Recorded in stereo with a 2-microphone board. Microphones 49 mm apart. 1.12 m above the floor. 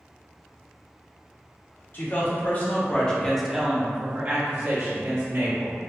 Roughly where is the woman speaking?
Left.